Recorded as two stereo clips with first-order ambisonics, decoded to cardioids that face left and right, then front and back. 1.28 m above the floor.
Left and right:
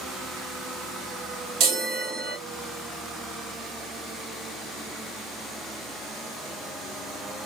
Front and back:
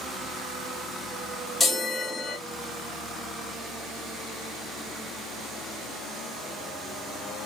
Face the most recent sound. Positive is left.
turn(degrees=-85)